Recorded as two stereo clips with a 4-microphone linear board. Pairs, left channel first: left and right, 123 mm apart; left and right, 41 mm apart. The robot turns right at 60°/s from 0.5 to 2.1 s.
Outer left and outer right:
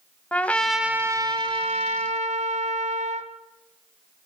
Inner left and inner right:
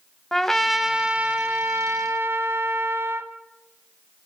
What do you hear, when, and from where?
0.3 s a trumpet: 170° left, 1.1 m; by 3.3 s 95° right, 1.1 m